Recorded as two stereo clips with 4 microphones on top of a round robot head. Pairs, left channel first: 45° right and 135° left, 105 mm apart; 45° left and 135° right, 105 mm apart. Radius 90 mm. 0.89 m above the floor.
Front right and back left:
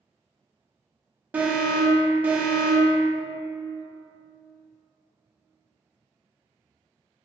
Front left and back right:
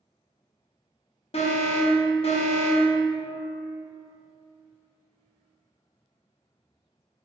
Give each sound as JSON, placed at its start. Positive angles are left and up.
{"t": 1.3, "sound": "an alarm", "azimuth_deg": 60, "distance_m": 0.8}